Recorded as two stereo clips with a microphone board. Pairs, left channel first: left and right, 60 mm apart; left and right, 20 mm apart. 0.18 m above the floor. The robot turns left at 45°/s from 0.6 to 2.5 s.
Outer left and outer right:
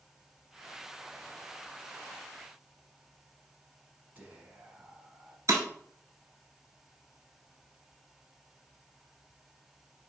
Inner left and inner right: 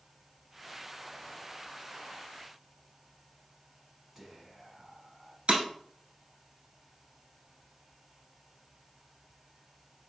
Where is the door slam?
I don't hear a door slam.